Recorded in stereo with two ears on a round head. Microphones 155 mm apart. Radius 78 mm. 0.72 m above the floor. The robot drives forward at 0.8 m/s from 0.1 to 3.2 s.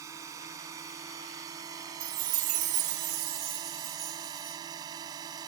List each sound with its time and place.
0.0 s a drone: 20° right (ahead or behind)
2.0 s a chime: 55° right (ahead or behind); by 4.6 s 35° right (ahead or behind)